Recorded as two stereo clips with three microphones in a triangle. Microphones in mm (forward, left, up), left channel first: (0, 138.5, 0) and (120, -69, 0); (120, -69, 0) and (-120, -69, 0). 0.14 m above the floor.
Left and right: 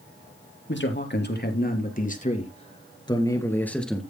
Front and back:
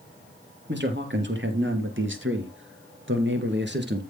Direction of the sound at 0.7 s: 150° left.